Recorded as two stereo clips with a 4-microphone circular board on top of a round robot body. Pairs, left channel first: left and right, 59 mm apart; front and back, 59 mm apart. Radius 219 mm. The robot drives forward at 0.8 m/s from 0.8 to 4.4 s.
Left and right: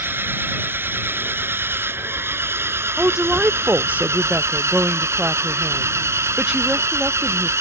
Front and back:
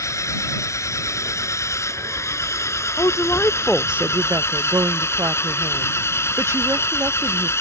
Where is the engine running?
35° right; by 7.6 s 45° right.